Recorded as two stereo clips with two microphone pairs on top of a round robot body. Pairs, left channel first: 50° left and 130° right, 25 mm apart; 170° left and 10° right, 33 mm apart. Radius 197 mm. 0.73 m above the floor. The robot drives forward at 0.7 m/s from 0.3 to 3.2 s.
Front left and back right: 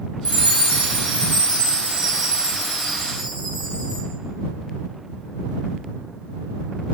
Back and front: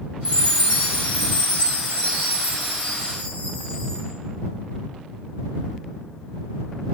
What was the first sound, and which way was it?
A chime, 155° right.